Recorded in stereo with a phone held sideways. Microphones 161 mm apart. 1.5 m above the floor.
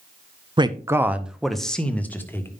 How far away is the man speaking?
About 0.7 m.